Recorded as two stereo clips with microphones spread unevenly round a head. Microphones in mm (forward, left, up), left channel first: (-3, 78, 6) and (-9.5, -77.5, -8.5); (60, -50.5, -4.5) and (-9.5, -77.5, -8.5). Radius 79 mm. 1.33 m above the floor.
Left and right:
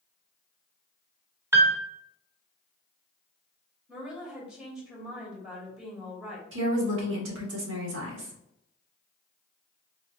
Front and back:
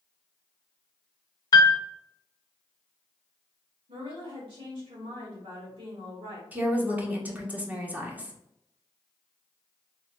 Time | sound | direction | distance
1.5 | a piano | 20° right | 0.7 m
3.9 | a woman speaking | straight behind | 2 m
6.5 | a woman speaking | 90° right | 1.5 m